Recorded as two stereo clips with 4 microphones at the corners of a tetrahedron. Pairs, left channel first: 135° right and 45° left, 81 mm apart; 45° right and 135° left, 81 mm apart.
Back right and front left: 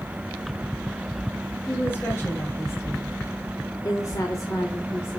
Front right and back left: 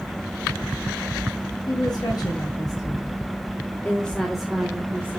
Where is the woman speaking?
75° right, 3 m; by 5.2 s 175° left, 1.5 m.